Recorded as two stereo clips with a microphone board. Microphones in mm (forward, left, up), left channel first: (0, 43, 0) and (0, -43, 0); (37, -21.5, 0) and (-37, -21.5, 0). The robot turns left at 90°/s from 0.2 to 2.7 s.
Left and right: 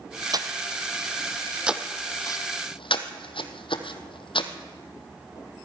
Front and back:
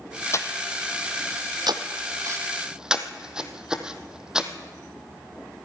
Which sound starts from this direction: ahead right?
Breathing, at 0.3 s.